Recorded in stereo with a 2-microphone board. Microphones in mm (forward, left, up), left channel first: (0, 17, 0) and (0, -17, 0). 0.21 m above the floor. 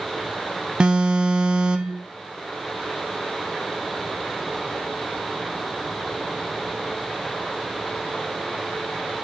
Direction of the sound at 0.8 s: 30° right (ahead or behind).